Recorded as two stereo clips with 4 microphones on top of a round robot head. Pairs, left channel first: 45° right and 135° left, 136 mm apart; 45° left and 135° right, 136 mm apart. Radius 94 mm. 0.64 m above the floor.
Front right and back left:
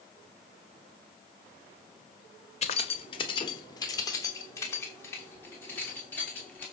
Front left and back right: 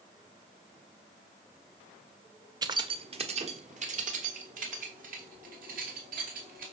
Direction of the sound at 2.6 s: 75° right.